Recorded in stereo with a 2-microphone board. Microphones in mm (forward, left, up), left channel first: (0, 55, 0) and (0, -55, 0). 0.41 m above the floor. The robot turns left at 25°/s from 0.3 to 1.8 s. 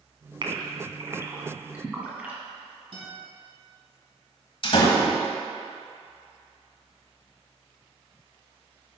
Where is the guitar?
55° right (ahead or behind), 3.5 m.